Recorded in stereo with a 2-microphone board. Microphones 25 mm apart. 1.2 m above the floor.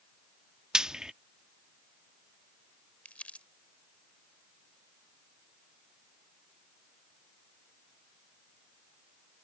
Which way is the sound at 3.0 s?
55° left (ahead or behind).